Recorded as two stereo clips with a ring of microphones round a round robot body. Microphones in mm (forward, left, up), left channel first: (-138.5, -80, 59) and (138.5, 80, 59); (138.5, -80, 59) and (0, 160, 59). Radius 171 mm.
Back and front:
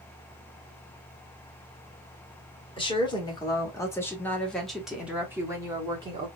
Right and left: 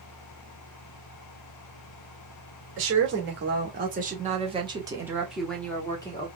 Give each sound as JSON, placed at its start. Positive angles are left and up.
{"t": 2.8, "sound": "a woman speaking", "azimuth_deg": 140, "distance_m": 1.9}